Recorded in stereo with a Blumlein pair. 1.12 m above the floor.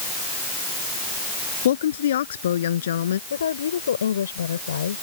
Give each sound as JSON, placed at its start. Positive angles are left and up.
{"t": 1.6, "sound": "a woman speaking", "azimuth_deg": 60}
{"t": 3.3, "sound": "a woman speaking", "azimuth_deg": 70}